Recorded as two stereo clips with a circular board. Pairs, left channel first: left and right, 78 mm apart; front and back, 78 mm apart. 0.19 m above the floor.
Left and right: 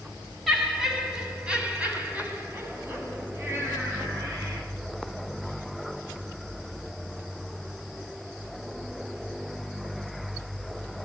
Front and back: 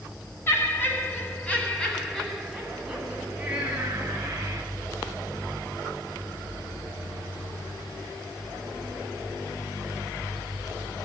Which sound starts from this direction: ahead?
Laughter, at 0.5 s.